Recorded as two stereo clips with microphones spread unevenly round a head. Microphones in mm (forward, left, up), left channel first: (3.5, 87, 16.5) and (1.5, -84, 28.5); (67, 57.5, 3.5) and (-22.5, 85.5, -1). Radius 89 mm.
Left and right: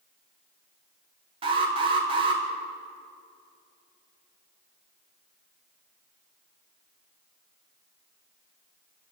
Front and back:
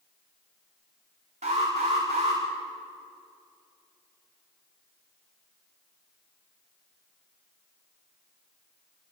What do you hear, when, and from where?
1.4 s an alarm: 150° right, 5 m